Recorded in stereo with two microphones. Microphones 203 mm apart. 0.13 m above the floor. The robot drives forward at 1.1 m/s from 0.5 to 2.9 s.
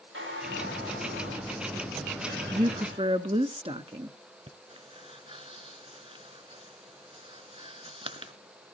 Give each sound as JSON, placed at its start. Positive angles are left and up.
{"t": 0.1, "sound": "a squeak", "side_deg": -85, "distance_m": 9.0}
{"t": 2.5, "sound": "a woman speaking", "side_deg": -30, "distance_m": 1.2}
{"t": 4.5, "sound": "breathing", "side_deg": -30, "distance_m": 1.1}